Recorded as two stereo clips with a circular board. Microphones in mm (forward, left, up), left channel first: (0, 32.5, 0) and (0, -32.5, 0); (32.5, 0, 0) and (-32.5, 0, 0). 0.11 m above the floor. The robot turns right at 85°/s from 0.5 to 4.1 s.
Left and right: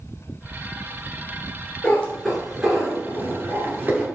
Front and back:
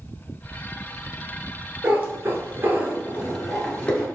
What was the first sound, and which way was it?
A cat meowing, 130° left.